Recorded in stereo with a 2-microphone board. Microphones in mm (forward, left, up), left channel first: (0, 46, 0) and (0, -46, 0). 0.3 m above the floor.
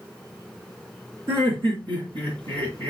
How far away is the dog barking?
I don't hear a dog barking.